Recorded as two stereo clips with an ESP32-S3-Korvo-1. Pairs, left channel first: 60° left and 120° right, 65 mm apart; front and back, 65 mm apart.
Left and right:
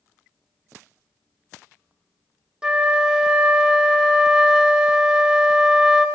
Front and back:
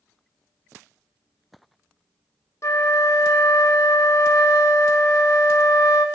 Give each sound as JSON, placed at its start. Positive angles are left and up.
{"t": 2.6, "sound": "a flute", "azimuth_deg": -40, "distance_m": 0.8}